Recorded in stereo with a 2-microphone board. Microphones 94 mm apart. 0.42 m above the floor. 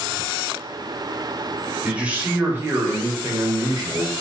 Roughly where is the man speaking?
Centre.